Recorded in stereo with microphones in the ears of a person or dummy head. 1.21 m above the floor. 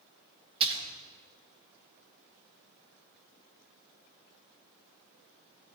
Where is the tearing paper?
No tearing paper in this recording.